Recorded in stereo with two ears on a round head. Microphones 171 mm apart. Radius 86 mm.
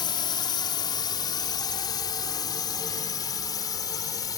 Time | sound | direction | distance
0.0 | a drone | 25° left (ahead or behind) | ?